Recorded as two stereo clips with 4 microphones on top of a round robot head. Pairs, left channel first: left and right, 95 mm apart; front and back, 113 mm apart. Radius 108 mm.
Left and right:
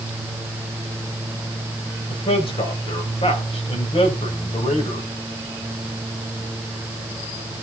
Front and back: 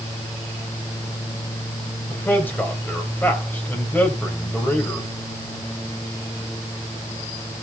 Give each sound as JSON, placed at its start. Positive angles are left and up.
{"t": 2.1, "sound": "a man speaking", "azimuth_deg": 75, "distance_m": 3.5}